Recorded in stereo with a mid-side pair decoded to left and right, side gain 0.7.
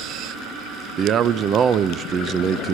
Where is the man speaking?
40° right, 0.7 m.